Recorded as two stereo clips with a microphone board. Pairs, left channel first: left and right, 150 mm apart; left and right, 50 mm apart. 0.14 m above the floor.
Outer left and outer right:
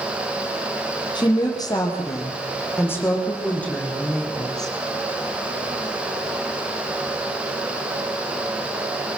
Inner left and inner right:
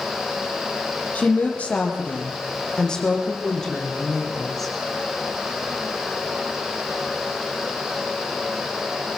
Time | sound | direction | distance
1.1 | a woman speaking | 30° left (ahead or behind) | 5 m